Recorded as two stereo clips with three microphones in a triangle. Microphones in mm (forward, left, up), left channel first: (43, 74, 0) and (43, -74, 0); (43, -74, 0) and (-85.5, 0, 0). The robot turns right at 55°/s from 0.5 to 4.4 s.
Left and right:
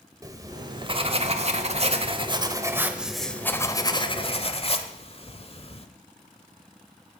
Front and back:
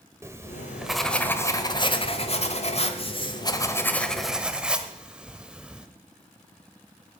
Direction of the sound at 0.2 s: 145° right.